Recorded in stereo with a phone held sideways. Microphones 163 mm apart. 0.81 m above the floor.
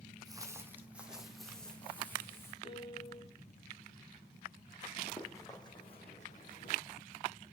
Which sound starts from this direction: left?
A piano, at 2.6 s.